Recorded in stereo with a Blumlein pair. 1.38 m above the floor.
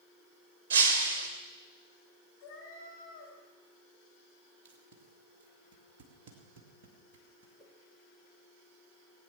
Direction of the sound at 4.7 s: 50° right.